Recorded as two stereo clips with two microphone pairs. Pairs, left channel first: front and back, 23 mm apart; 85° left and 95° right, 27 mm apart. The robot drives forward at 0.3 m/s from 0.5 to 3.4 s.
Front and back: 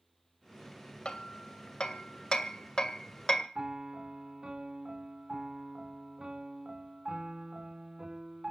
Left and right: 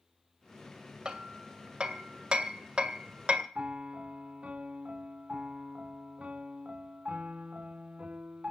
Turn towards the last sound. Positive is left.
turn(degrees=-125)